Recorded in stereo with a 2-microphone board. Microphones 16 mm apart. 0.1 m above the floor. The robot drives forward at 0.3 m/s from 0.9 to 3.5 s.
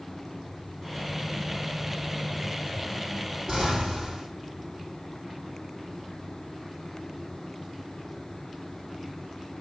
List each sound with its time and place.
3.5 s an explosion: 40° right (ahead or behind), 4 m